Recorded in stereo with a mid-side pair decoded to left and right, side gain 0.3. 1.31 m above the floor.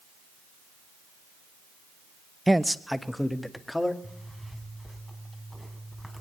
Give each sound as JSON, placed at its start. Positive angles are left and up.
{"t": 2.5, "sound": "a man speaking", "azimuth_deg": -15, "distance_m": 0.8}
{"t": 4.0, "sound": "a zipper", "azimuth_deg": 0, "distance_m": 4.0}